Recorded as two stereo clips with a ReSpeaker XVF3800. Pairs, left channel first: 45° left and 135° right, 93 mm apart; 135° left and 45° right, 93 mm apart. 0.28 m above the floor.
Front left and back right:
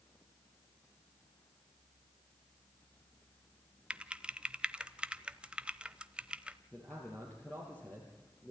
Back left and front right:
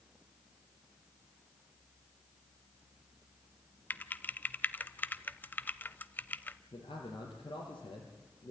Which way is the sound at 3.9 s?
160° left.